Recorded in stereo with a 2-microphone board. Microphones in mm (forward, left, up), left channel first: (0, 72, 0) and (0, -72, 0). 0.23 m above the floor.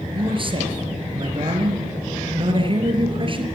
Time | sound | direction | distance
0.1 | a man speaking | 35° right (ahead or behind) | 5 m